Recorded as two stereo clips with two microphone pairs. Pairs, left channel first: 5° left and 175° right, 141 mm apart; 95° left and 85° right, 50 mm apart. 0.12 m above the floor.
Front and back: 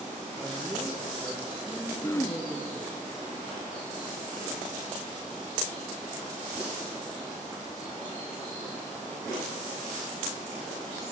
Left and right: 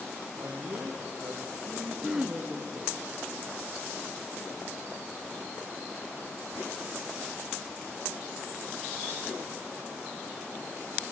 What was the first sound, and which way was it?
A man speaking, 80° right.